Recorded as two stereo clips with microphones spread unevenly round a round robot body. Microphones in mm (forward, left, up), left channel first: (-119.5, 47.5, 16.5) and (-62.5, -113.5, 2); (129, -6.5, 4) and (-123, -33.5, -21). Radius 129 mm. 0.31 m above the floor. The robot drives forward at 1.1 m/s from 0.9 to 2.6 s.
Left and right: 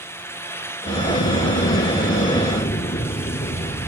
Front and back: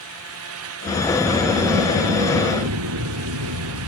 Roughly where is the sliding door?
Left.